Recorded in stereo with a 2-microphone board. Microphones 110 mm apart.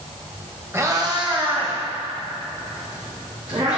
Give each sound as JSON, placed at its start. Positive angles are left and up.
{"t": 0.7, "sound": "a cat meowing", "side_deg": -25, "distance_m": 1.5}